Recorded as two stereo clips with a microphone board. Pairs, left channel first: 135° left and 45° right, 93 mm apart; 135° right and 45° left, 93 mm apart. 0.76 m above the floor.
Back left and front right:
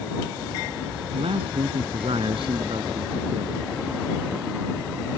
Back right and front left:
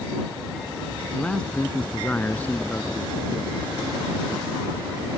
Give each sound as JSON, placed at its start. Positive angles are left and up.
{"t": 1.1, "sound": "a man speaking", "azimuth_deg": -55}